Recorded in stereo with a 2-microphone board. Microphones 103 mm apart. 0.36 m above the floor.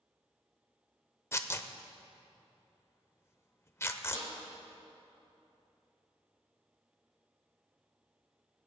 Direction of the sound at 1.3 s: 25° left (ahead or behind).